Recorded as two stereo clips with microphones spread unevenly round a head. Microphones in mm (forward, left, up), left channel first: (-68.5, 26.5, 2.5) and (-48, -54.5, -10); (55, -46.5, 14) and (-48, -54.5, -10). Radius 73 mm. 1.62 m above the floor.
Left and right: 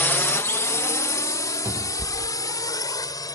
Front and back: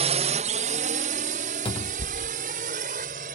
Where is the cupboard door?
5° right.